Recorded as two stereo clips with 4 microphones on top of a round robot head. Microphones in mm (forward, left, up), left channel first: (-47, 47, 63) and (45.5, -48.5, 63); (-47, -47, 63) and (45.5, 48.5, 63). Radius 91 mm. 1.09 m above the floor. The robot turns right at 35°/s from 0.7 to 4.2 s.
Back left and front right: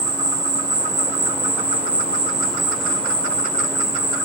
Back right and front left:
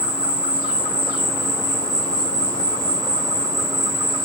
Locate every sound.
0.0 s an insect: 20° right, 0.9 m; by 4.3 s 100° left, 0.9 m